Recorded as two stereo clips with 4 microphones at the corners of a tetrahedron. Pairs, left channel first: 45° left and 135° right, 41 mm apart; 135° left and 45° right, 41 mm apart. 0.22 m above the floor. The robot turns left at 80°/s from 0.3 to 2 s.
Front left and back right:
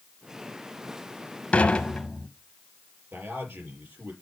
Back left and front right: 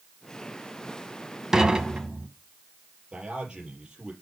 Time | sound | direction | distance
1.5 | dishes clattering | 20° left | 0.9 m
3.1 | a man speaking | 115° right | 4.5 m